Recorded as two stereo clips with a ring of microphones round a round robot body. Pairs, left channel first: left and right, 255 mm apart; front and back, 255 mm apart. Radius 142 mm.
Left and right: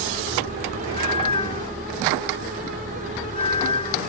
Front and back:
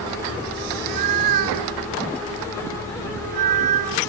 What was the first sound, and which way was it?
A cat meowing, 165° left.